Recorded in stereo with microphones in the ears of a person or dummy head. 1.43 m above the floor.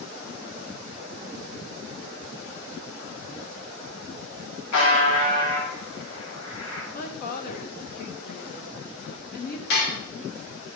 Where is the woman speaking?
50° left (ahead or behind), 1.2 m.